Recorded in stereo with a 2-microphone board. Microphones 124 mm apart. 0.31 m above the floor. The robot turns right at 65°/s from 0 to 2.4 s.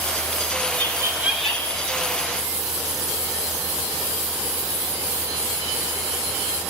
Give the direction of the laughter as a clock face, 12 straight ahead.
1 o'clock.